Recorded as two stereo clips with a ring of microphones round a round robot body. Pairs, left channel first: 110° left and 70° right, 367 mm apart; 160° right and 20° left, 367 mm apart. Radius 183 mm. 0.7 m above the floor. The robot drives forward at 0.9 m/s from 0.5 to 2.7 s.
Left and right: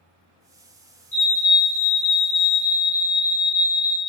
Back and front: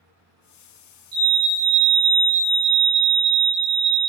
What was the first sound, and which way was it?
A fire alarm, 50° left.